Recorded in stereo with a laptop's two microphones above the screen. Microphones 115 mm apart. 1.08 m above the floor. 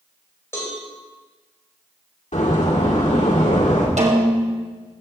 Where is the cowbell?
20° left (ahead or behind), 2.5 m.